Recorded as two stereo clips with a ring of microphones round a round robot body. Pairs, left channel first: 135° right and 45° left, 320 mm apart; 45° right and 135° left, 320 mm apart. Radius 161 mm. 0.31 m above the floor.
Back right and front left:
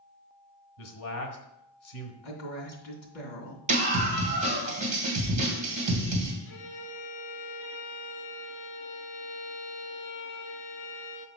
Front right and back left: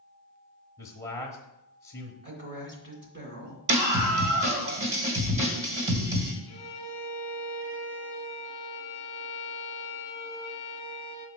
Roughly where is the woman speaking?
Behind.